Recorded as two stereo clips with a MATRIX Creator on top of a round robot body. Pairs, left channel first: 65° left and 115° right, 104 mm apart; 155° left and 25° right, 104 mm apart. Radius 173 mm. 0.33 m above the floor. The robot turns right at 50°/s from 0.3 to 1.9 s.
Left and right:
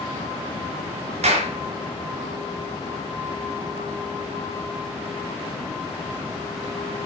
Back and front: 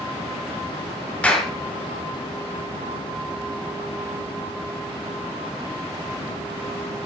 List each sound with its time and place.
1.2 s a clap: 125° right, 5 m; by 1.5 s 110° right, 5 m